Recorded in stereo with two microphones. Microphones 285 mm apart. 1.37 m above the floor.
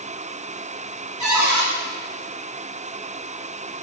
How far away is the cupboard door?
About 1.1 m.